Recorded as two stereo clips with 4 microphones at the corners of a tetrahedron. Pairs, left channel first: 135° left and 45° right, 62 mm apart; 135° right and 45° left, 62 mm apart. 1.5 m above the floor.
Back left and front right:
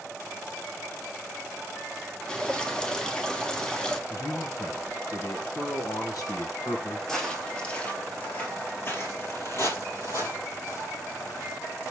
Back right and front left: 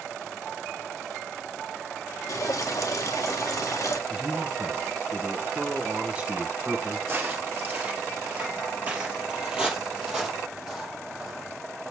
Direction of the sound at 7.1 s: 60° left.